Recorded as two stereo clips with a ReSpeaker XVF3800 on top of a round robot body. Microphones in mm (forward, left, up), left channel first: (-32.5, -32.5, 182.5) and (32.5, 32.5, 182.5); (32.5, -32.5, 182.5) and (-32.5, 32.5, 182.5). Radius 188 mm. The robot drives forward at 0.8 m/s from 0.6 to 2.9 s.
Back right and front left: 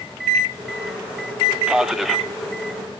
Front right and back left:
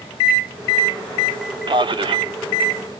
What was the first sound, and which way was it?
A man speaking, 125° left.